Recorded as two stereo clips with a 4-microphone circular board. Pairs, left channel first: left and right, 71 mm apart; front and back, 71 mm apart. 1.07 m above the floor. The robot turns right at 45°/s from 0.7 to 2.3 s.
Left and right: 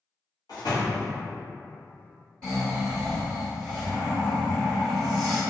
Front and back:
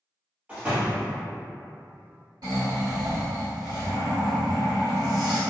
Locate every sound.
0.5 s a door slam: 110° left, 0.9 m; by 1.1 s 125° left, 0.9 m
2.4 s snoring: 170° left, 1.4 m